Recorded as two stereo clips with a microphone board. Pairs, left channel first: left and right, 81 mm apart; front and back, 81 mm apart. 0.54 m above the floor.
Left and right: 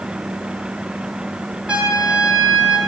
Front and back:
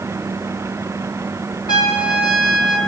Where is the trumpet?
15° right, 1.3 m.